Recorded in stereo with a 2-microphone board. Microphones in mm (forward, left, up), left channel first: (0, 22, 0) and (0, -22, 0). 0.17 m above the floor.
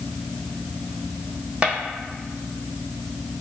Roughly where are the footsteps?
Right.